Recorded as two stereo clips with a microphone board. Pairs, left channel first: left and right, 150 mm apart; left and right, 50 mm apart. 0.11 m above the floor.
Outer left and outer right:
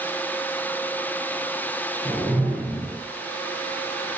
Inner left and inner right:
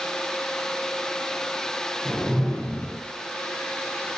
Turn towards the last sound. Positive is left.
turn(degrees=0)  # may be behind; listen again after turning